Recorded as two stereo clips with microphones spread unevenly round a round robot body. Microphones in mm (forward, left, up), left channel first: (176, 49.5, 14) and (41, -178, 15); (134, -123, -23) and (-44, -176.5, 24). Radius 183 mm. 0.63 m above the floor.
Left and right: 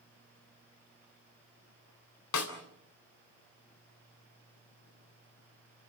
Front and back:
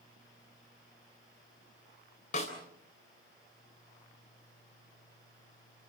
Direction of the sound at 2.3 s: 75° left.